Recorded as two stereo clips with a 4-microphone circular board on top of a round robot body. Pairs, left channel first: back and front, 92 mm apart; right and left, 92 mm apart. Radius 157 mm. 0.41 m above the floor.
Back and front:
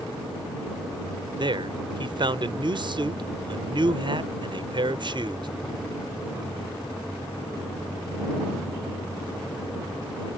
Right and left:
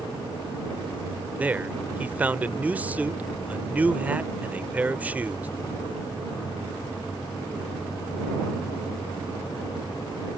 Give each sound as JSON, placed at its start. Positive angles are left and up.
{"t": 1.4, "sound": "a man speaking", "azimuth_deg": 15}